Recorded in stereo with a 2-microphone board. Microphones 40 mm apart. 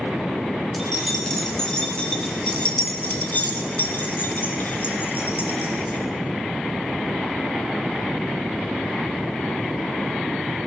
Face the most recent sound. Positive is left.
turn(degrees=55)  # may be behind; listen again after turning